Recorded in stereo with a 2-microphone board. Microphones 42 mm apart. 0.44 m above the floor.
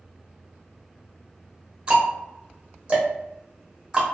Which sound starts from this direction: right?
Ticking, at 1.9 s.